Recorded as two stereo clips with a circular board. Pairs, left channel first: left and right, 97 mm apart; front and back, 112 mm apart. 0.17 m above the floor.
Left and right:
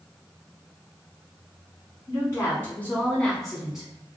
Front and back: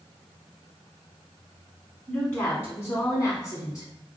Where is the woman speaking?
65° left, 1.4 m; by 3.9 s 15° right, 1.3 m.